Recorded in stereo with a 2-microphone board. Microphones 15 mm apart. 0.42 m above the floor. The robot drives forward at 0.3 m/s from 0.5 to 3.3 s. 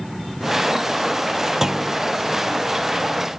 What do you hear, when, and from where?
1.6 s a clunk: 35° right (ahead or behind), 0.7 m